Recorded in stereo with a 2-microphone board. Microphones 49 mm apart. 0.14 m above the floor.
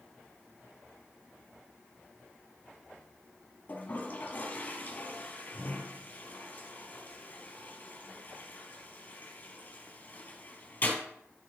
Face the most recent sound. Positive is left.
turn(degrees=40)  # may be behind; listen again after turning